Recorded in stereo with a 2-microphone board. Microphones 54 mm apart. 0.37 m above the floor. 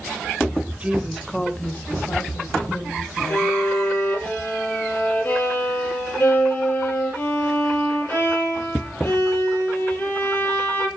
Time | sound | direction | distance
0.8 | a woman speaking | 25° right (ahead or behind) | 1.1 m
3.3 | a violin | 45° left (ahead or behind) | 7.5 m